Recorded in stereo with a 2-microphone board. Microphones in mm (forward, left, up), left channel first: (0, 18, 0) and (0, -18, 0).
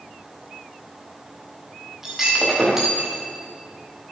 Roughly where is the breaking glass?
Centre.